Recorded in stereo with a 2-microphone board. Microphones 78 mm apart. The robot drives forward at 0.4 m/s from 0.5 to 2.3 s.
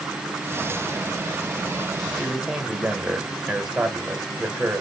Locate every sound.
2.2 s a man speaking: 5° right (ahead or behind), 0.9 m